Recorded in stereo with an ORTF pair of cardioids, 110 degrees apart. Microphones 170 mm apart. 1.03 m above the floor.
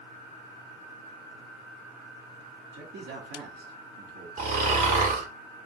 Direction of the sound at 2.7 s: 65° right.